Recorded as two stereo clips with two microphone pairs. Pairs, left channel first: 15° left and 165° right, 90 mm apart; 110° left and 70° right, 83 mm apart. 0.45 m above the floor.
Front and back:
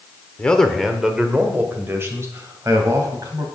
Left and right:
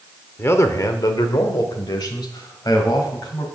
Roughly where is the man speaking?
Left.